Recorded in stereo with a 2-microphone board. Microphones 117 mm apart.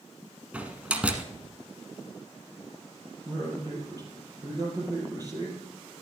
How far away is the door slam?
About 1.0 m.